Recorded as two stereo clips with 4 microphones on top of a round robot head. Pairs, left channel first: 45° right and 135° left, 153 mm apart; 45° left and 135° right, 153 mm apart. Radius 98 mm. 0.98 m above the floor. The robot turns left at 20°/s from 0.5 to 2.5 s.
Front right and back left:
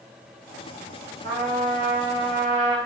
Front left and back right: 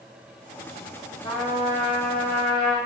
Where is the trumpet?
100° left, 0.7 m; by 2.8 s 75° left, 0.7 m.